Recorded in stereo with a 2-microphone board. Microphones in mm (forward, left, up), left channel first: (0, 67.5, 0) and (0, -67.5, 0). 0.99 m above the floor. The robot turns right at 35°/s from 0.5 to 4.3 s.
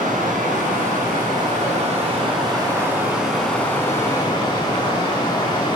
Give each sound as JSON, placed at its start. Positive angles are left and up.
{"t": 0.0, "sound": "running water", "azimuth_deg": -100, "distance_m": 5.5}